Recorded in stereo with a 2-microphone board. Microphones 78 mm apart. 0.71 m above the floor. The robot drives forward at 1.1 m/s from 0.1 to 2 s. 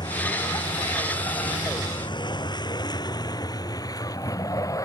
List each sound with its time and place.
0.0 s a vehicle: 70° left (ahead or behind); by 4.9 s 45° left (ahead or behind)